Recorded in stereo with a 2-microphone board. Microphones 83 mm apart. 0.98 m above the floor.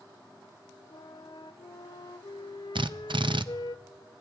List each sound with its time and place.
0.9 s a flute: 70° left (ahead or behind), 0.7 m
2.8 s a drill: 75° right (ahead or behind), 0.5 m